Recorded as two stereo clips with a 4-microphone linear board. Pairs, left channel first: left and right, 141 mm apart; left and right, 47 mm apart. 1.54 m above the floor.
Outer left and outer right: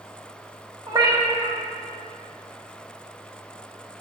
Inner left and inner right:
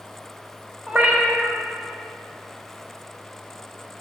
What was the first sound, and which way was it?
A cat meowing, 30° right (ahead or behind).